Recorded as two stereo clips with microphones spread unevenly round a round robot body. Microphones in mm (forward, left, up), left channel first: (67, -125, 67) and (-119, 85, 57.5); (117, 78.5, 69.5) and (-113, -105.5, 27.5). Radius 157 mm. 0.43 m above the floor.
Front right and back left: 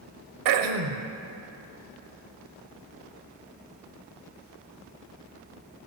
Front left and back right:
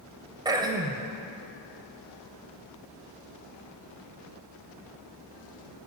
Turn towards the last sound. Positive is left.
turn(degrees=140)